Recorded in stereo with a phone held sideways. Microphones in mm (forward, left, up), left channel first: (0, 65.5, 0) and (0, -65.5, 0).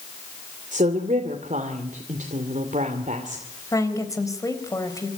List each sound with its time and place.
0.7 s a woman speaking: 75° right (ahead or behind), 2.5 m
3.7 s a woman speaking: 25° left (ahead or behind), 3.5 m